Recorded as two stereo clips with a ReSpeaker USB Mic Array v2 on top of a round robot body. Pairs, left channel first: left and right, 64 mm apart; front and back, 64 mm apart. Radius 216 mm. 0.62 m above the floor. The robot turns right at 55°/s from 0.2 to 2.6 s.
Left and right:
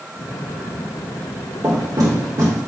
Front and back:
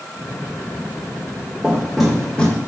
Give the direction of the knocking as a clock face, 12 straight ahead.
4 o'clock.